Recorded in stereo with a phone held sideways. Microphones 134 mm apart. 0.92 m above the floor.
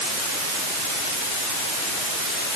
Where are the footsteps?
I don't hear footsteps.